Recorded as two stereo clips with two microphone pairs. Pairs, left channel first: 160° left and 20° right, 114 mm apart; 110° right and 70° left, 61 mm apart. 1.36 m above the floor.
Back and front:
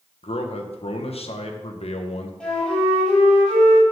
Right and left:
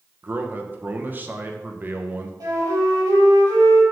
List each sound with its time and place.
0.2 s a man speaking: 130° left, 1.0 m
2.4 s a flute: 75° left, 3.5 m